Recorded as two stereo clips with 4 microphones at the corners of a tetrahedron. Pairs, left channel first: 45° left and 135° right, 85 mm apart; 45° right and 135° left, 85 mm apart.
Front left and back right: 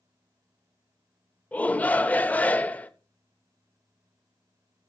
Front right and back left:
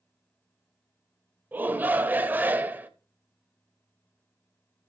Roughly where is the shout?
Left.